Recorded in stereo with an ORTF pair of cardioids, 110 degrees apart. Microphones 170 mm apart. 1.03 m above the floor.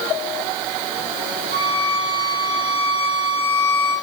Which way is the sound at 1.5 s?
65° right.